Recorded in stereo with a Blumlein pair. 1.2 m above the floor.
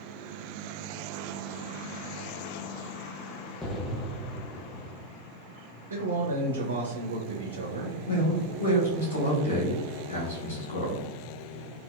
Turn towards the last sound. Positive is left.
turn(degrees=65)